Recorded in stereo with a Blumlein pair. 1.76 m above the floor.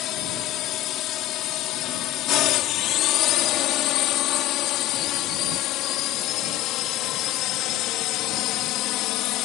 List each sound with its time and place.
0.0 s a drone: 35° left